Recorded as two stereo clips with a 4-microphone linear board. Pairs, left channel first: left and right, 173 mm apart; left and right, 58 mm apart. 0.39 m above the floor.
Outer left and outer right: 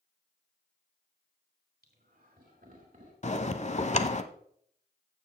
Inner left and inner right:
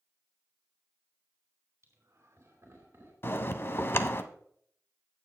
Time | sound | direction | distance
1.8 | laughter | 70° right (ahead or behind) | 3 m
3.2 | a bell | 45° left (ahead or behind) | 0.6 m